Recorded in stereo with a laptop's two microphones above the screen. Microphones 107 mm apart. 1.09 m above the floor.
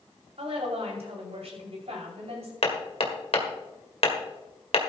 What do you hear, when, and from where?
0.4 s a woman speaking: 80° right, 6 m
2.6 s hammering: 70° left (ahead or behind), 1.8 m